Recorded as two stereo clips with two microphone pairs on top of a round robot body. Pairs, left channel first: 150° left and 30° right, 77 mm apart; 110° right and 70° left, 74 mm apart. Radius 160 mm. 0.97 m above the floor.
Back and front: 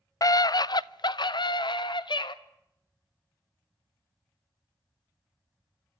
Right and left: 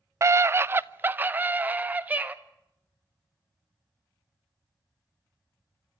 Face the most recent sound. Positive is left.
turn(degrees=135)